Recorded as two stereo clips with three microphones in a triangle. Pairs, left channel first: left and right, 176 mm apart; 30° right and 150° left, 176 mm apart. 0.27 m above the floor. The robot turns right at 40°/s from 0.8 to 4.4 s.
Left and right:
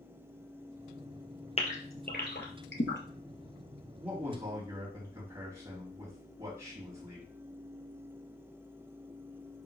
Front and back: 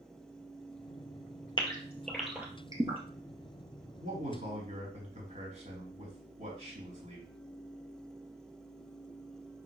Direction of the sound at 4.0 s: 175° right.